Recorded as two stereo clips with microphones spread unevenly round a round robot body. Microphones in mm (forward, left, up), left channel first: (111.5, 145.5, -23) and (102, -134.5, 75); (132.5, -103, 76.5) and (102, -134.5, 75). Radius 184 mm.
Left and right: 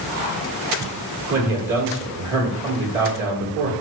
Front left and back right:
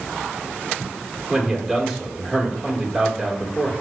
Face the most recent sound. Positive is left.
turn(degrees=-65)